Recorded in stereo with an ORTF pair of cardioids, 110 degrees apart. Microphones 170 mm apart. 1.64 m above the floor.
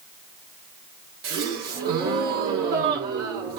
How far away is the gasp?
About 1.8 m.